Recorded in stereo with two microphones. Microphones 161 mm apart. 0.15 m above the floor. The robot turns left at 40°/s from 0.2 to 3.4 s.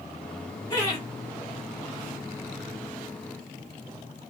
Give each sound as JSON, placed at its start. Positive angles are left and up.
{"t": 0.7, "sound": "laughter", "side_deg": 25, "distance_m": 1.6}